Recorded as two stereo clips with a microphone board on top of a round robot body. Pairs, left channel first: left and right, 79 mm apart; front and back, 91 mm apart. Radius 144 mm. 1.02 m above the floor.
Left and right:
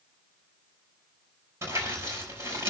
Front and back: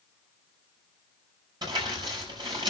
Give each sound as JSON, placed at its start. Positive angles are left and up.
{"t": 1.6, "sound": "crumpling", "azimuth_deg": -145, "distance_m": 5.5}